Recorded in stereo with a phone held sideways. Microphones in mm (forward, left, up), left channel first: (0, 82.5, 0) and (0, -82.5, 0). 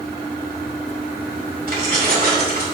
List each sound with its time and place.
1.7 s keys jangling: 65° right (ahead or behind), 4.5 m